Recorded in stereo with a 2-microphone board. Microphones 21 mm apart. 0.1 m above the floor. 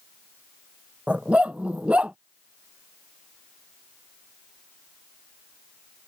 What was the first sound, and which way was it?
A dog barking, 70° right (ahead or behind).